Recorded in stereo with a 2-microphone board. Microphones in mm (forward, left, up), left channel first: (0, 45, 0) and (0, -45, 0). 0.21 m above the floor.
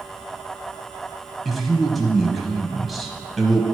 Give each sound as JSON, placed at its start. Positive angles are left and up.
{"t": 1.4, "sound": "a man speaking", "side_deg": 0, "distance_m": 1.0}